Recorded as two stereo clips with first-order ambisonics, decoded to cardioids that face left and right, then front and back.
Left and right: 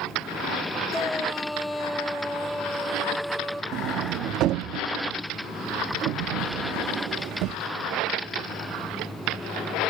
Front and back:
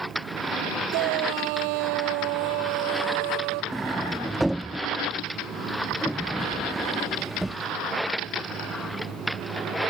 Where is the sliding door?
95° right.